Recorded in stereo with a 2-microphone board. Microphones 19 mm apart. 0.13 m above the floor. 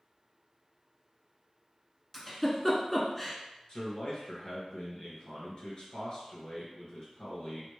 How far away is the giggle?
About 0.9 m.